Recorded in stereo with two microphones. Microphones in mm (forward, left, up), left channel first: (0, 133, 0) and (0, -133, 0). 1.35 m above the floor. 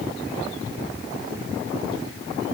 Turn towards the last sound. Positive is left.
No sound to turn to.